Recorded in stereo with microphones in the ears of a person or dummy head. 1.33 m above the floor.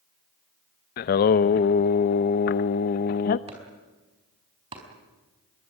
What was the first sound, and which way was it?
Singing, 40° left (ahead or behind).